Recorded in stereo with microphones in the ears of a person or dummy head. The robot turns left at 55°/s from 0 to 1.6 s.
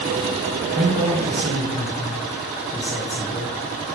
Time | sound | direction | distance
0.8 | a man speaking | 145° right | 1.2 m